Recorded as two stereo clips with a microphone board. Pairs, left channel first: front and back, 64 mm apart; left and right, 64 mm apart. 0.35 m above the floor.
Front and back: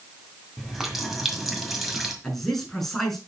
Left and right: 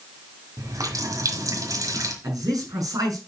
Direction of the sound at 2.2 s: 80° right.